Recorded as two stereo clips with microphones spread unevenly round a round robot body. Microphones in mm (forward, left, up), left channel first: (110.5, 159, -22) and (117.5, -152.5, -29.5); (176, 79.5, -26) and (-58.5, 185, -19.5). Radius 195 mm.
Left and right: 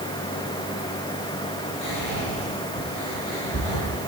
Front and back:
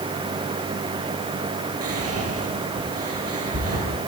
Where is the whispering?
130° left, 9.5 m.